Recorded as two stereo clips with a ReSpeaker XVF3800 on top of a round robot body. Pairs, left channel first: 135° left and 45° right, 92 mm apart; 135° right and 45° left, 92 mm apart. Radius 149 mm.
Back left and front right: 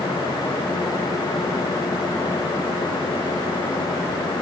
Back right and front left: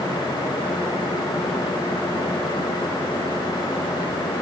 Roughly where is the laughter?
I don't hear laughter.